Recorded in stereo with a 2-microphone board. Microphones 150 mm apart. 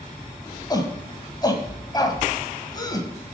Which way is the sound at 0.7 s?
25° left (ahead or behind).